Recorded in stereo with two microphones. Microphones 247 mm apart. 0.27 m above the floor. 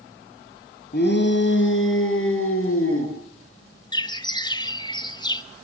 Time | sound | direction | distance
0.9 | a shout | 40° left (ahead or behind) | 3 m
3.9 | a bird | 20° left (ahead or behind) | 0.8 m